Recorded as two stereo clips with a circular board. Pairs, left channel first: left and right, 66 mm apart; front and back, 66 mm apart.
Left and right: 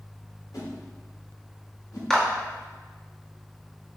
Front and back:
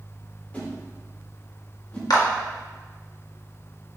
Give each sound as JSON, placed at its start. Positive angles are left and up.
{"t": 0.5, "sound": "a whoosh", "azimuth_deg": 70, "distance_m": 4.0}
{"t": 2.1, "sound": "a clap", "azimuth_deg": 5, "distance_m": 1.9}